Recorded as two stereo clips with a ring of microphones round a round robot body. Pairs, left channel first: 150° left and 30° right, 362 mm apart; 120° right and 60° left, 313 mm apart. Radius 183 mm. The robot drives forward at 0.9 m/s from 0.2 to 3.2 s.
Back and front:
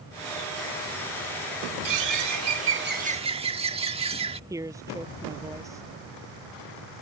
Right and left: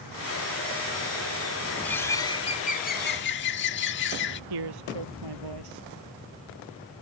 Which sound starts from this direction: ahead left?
A man speaking, at 4.5 s.